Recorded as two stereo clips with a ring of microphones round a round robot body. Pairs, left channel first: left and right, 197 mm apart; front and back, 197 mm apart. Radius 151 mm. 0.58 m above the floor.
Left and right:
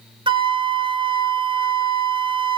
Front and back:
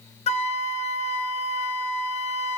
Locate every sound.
0.3 s a flute: 35° right, 0.6 m